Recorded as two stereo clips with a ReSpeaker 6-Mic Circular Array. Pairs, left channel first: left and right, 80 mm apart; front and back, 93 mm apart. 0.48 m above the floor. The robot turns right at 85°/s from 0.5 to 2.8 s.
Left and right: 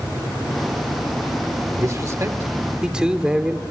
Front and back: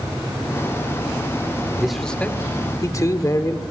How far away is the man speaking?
About 1.4 m.